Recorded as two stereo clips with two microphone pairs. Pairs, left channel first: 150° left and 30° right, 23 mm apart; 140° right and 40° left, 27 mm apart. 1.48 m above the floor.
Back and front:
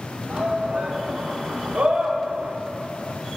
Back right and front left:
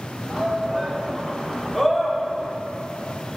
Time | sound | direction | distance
0.3 | a shout | 25° right | 1.8 m